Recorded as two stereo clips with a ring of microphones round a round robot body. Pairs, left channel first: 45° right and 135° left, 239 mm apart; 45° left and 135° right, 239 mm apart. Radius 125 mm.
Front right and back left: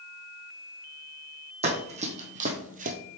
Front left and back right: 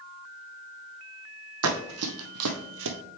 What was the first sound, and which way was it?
Running footsteps, 160° right.